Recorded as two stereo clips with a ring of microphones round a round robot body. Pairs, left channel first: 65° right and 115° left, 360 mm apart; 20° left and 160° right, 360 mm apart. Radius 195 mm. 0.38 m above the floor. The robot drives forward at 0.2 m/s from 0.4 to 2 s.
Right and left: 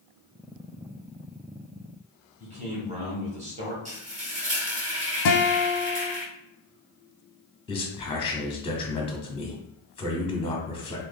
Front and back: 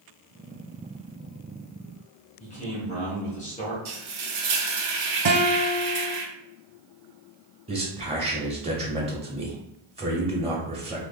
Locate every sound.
2.4 s a man speaking: 65° left, 1.3 m
3.9 s frying: straight behind, 1.3 m
5.2 s a guitar: 105° right, 0.7 m
7.7 s a man speaking: 115° right, 0.9 m